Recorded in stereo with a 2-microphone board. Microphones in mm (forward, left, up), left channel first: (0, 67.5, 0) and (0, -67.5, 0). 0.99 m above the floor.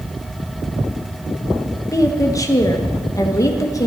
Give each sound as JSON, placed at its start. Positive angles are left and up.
{"t": 1.9, "sound": "a woman speaking", "side_deg": 25, "distance_m": 1.2}